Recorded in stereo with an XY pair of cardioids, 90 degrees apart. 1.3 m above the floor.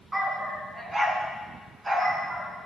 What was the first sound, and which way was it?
A dog barking, 20° right.